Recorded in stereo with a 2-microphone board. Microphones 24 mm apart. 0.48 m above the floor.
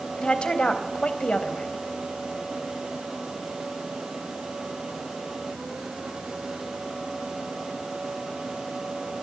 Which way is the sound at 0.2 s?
45° left (ahead or behind).